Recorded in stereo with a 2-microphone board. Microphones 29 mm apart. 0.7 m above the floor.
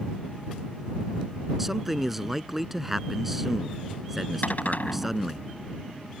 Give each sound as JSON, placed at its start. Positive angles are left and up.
{"t": 1.6, "sound": "a man speaking", "side_deg": -10}
{"t": 4.4, "sound": "a cupboard door", "side_deg": 60}